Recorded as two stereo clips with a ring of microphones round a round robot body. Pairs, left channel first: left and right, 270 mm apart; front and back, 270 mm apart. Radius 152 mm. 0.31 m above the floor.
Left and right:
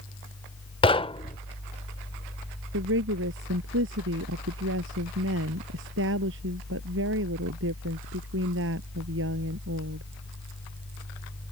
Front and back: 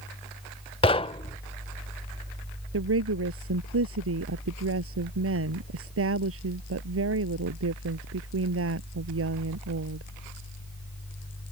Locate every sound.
0.8 s knocking: 45° left
2.7 s a woman speaking: 140° right